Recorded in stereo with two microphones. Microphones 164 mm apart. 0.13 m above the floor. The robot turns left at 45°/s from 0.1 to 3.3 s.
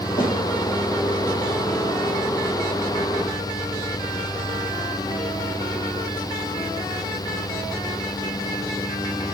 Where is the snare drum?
50° left (ahead or behind), 3 m; by 0.3 s 60° left (ahead or behind), 3 m.